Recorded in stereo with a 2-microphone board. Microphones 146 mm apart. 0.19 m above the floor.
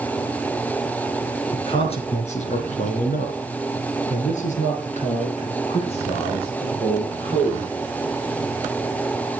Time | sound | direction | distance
1.5 | a man speaking | 40° left (ahead or behind) | 2.5 m